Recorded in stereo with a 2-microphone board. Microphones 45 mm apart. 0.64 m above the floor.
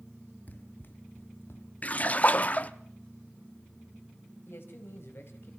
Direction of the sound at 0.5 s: 40° left (ahead or behind).